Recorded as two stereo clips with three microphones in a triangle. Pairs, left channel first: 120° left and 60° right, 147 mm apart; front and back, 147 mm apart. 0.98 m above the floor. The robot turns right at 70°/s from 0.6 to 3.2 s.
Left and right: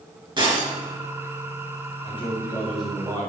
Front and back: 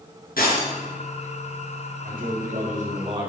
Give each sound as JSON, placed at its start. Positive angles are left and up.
{"t": 0.4, "sound": "breaking glass", "azimuth_deg": 0, "distance_m": 4.5}
{"t": 2.0, "sound": "a man speaking", "azimuth_deg": 160, "distance_m": 4.0}